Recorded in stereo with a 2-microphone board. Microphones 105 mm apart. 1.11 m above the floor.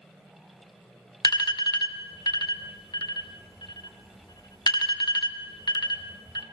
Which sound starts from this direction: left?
An alarm, at 1.2 s.